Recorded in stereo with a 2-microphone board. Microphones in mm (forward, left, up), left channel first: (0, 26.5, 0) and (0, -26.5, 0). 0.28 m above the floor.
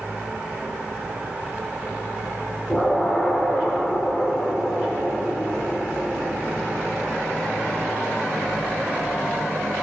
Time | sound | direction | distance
2.7 | an explosion | 20° left (ahead or behind) | 1.1 m